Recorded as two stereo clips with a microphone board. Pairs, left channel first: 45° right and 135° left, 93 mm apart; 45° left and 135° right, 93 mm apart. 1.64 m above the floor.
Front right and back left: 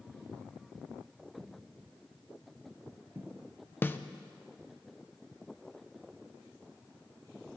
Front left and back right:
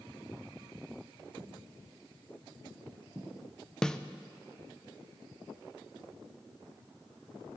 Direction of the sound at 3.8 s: 25° right.